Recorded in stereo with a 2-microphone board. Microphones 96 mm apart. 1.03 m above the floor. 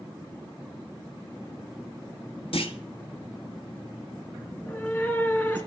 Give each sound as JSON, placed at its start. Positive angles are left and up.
{"t": 2.5, "sound": "a clunk", "side_deg": 70, "distance_m": 1.3}
{"t": 4.5, "sound": "a cat meowing", "side_deg": 20, "distance_m": 2.0}